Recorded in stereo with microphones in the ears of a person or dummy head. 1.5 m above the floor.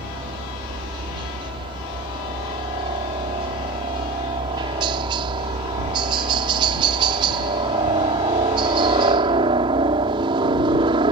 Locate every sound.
0.0 s a helicopter: 25° right (ahead or behind)